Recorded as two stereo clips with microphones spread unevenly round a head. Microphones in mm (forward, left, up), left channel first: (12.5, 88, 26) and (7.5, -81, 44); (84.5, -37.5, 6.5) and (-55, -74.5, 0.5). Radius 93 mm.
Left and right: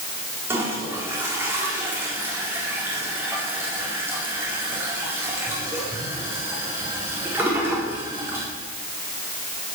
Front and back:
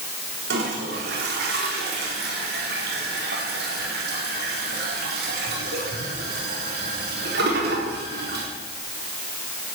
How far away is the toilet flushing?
About 4 m.